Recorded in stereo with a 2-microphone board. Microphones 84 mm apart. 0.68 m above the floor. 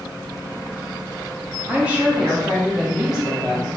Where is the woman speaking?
20° right (ahead or behind), 0.8 m; by 3.7 s 5° right (ahead or behind), 1.8 m.